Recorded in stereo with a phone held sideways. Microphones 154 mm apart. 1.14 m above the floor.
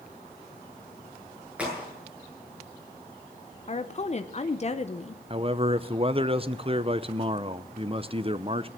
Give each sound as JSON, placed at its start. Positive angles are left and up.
{"t": 1.6, "sound": "a crack", "side_deg": -10, "distance_m": 8.5}
{"t": 3.7, "sound": "a woman speaking", "side_deg": 40, "distance_m": 0.7}
{"t": 5.3, "sound": "a man speaking", "side_deg": -35, "distance_m": 0.7}